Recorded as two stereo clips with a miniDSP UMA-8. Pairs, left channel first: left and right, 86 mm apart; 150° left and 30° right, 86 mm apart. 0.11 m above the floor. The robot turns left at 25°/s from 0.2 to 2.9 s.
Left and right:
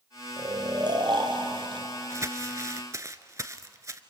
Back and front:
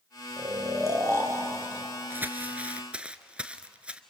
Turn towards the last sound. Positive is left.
turn(degrees=-95)